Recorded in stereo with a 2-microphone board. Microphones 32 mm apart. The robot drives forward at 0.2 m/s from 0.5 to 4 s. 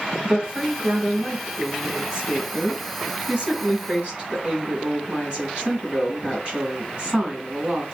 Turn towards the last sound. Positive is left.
turn(degrees=-30)  # may be behind; listen again after turning